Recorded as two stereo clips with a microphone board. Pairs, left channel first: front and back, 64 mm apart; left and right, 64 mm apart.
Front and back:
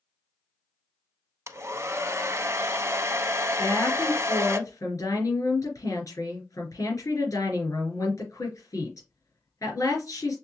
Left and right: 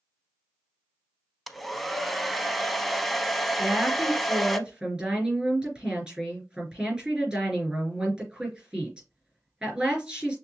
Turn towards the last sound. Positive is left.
turn(degrees=-15)